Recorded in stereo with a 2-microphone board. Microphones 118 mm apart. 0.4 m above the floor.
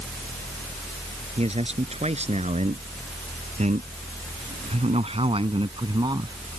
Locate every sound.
1.4 s a man speaking: 65° right (ahead or behind); by 6.4 s 35° right (ahead or behind)